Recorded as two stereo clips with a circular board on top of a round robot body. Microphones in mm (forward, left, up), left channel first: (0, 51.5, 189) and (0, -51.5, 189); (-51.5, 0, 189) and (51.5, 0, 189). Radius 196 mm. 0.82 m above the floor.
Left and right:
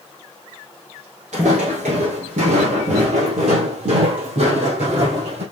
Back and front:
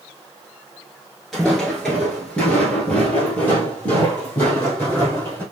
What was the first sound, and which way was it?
Footsteps, 90° right.